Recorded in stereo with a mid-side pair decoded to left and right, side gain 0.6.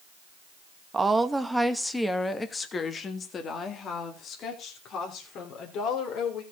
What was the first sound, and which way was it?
A woman speaking, 25° right.